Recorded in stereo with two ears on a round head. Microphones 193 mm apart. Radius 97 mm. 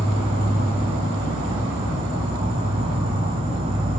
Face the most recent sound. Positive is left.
turn(degrees=-25)  # may be behind; listen again after turning